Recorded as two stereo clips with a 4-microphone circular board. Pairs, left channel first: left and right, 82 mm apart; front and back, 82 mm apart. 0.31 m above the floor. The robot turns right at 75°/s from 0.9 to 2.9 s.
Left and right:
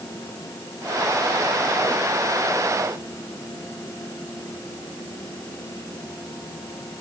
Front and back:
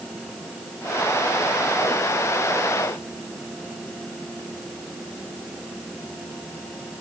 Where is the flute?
I don't hear a flute.